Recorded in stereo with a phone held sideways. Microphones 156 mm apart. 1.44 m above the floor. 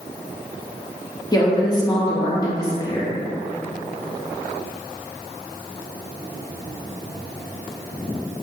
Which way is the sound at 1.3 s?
25° left (ahead or behind).